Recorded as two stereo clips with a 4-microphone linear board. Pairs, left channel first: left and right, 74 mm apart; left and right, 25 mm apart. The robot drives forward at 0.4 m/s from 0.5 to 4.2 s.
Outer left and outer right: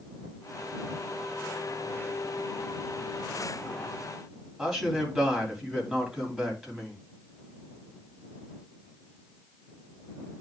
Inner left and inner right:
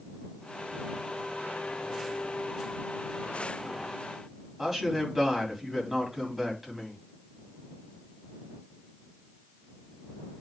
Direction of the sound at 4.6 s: Centre (ahead or behind).